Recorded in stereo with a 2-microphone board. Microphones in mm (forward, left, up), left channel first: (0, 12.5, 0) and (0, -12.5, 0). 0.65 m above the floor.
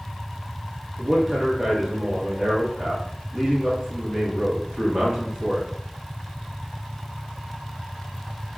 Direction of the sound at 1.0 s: 30° right (ahead or behind).